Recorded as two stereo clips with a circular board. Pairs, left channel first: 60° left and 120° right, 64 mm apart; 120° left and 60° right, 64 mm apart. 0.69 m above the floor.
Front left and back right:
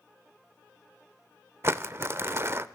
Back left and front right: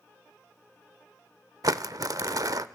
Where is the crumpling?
75° right, 0.7 m.